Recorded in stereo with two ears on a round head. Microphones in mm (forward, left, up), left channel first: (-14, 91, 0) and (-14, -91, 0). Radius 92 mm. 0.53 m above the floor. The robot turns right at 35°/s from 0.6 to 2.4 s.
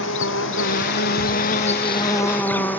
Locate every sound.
0.0 s an insect: 105° left; by 2.8 s 170° left